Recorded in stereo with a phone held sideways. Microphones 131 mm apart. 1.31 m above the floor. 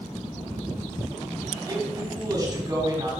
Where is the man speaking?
25° right (ahead or behind), 3.5 m.